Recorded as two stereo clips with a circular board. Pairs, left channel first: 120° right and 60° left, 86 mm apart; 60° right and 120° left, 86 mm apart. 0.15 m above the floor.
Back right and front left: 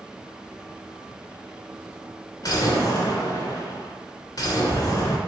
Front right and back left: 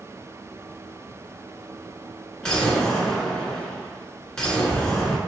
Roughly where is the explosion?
Behind right.